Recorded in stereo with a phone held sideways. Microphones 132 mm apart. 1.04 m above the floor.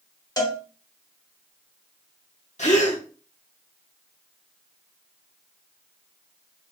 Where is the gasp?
60° left (ahead or behind), 1.0 m.